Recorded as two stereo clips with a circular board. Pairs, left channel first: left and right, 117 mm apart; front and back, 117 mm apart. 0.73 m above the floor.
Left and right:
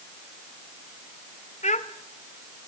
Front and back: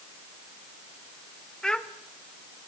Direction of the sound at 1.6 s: 85° left.